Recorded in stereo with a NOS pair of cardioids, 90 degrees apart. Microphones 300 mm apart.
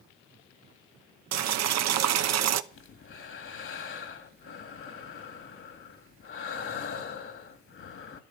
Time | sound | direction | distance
1.3 | boiling | 65° right | 0.8 m
2.7 | breathing | 45° left | 1.9 m